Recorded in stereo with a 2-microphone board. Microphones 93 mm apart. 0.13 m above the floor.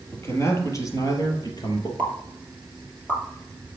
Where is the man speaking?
25° left (ahead or behind), 3.5 m; by 1.9 s 50° left (ahead or behind), 3 m.